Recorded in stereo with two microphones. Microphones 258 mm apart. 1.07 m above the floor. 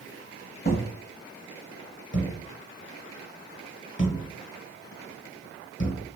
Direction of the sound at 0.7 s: 35° left (ahead or behind).